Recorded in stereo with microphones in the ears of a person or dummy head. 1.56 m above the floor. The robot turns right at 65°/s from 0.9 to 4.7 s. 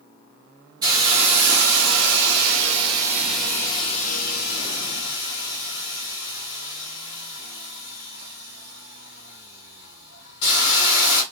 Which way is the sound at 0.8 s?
160° right.